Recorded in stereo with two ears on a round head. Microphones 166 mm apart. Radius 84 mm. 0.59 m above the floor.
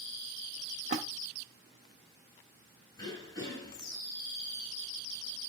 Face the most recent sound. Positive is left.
turn(degrees=20)  # may be behind; listen again after turning